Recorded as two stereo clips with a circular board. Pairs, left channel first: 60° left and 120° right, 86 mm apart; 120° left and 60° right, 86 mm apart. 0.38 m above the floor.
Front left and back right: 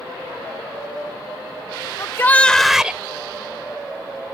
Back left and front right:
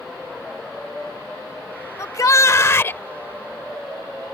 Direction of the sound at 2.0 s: 90° left.